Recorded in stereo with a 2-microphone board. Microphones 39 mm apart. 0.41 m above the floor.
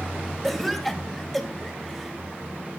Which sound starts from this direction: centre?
A cough, at 0.4 s.